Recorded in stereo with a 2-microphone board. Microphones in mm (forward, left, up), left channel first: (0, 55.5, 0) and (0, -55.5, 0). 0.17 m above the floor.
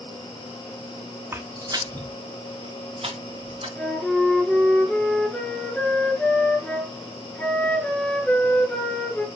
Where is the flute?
10° left (ahead or behind), 1.7 m.